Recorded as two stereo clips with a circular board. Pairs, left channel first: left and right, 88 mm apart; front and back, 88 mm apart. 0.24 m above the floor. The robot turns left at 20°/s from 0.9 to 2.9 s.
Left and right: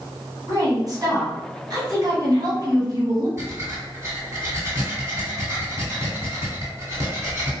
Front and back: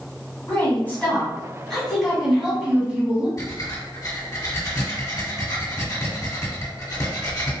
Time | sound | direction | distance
0.5 | a woman speaking | 70° right | 1.5 m
3.4 | breathing | 35° right | 1.5 m